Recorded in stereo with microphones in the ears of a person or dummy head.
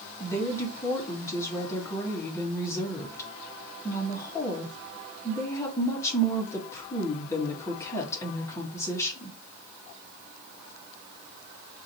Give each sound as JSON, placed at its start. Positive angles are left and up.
{"t": 0.2, "sound": "a woman speaking", "side_deg": 15, "distance_m": 1.7}